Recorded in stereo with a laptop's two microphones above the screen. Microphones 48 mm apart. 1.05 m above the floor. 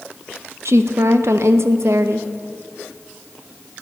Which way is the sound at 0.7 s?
65° right (ahead or behind).